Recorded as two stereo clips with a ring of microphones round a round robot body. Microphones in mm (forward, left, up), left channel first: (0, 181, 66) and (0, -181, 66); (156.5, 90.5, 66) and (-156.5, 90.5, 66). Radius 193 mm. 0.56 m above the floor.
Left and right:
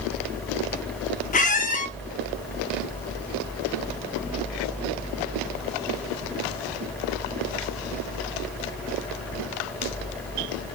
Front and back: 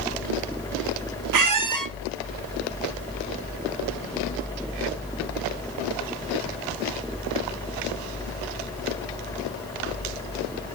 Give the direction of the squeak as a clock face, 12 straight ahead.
7 o'clock.